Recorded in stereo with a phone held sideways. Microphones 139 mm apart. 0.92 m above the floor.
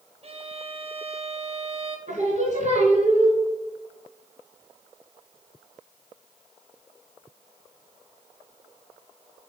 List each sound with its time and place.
0.2 s a violin: 45° right (ahead or behind), 0.9 m
2.1 s singing: 55° right (ahead or behind), 2.5 m